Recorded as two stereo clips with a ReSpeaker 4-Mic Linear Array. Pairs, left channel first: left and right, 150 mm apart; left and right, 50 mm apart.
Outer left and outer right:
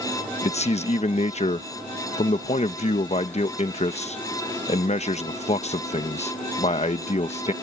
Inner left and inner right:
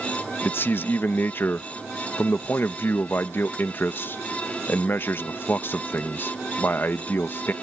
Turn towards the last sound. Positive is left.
turn(degrees=45)  # may be behind; listen again after turning